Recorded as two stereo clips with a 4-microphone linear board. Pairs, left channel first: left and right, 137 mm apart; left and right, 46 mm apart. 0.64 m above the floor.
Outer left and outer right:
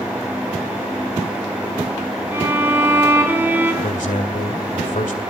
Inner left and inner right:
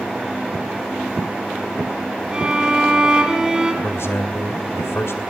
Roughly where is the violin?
Centre.